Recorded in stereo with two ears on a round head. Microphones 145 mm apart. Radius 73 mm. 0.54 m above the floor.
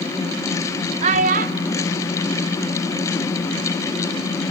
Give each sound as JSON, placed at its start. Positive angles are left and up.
{"t": 1.0, "sound": "a child speaking", "side_deg": -45, "distance_m": 1.0}